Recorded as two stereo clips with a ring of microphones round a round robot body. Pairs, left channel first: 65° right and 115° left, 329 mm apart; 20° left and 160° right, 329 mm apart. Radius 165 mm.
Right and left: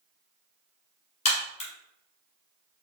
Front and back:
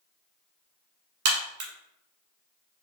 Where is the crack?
140° right, 1.2 m.